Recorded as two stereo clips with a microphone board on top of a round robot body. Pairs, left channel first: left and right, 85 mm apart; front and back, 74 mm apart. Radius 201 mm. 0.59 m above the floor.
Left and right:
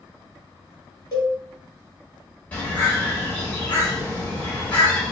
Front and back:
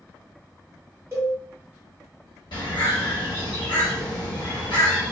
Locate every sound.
1.1 s a cowbell: 125° left, 1.2 m
2.5 s a bird: 15° left, 1.1 m